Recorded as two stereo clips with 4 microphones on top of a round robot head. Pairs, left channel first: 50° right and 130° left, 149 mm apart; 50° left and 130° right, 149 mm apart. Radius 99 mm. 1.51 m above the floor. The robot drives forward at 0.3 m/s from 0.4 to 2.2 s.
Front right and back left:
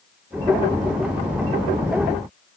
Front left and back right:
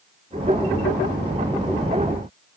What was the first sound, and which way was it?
Only background noise.